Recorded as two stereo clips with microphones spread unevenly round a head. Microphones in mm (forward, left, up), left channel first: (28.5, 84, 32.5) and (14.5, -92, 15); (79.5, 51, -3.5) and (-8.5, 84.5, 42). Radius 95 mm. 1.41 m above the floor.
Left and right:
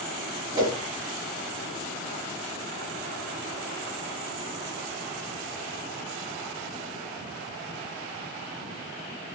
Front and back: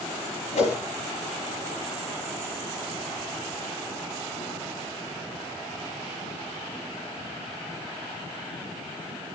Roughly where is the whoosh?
Ahead right.